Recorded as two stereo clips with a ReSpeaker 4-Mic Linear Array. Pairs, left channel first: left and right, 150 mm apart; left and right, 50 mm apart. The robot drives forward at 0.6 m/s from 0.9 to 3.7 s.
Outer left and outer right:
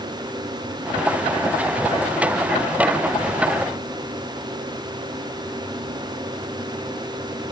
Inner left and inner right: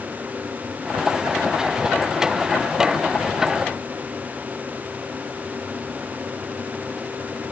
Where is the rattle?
I don't hear a rattle.